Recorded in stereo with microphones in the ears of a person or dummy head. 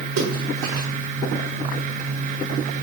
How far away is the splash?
About 1.1 m.